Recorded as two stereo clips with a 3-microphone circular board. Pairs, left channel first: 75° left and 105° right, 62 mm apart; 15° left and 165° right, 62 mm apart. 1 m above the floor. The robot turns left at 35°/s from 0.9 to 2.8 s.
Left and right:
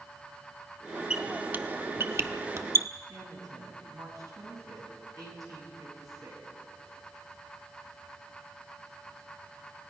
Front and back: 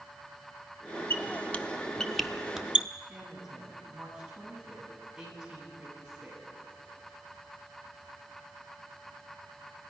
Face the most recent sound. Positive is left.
turn(degrees=-85)